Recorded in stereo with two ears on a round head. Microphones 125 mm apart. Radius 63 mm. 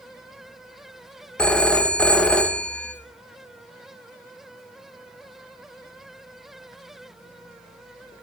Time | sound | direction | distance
1.4 | a phone ringing | 5° left (ahead or behind) | 0.6 m